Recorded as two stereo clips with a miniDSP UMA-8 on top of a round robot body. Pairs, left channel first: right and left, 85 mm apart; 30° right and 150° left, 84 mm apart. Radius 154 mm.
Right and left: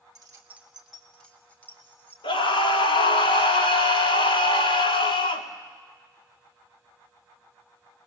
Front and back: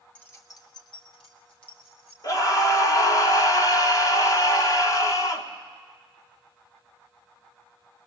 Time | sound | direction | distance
0.1 | keys jangling | 45° left | 1.1 m
2.2 | a scream | 75° right | 2 m